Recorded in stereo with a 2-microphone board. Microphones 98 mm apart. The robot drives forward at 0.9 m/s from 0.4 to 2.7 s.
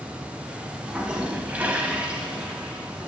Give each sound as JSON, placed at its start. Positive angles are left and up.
{"t": 0.8, "sound": "a toilet flushing", "side_deg": -10, "distance_m": 0.9}